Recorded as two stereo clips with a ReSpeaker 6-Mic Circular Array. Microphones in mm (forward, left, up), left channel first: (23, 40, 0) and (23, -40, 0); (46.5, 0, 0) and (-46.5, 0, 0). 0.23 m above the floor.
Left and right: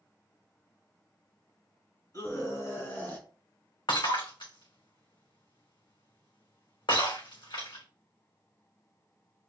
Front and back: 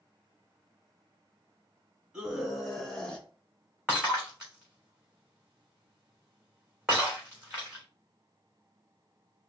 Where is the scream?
100° left, 2 m; by 3.3 s 60° left, 1.7 m.